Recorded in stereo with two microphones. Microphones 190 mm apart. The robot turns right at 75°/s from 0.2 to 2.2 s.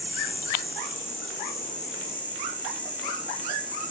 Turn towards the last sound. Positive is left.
turn(degrees=170)